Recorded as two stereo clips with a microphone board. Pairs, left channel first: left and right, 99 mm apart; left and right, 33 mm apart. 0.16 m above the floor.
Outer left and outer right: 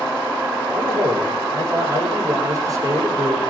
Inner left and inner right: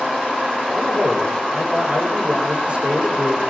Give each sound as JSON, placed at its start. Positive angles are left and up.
{"t": 0.7, "sound": "a man speaking", "side_deg": -35, "distance_m": 8.0}